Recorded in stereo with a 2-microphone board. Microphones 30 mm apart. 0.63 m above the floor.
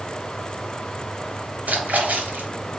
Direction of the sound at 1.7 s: 70° right (ahead or behind).